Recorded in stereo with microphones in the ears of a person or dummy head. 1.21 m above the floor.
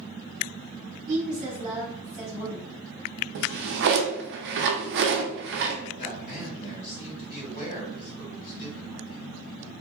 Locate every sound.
1.1 s a woman speaking: 40° right (ahead or behind), 1.2 m
3.4 s a drawer: 60° right (ahead or behind), 0.5 m
6.0 s a man speaking: 45° left (ahead or behind), 1.8 m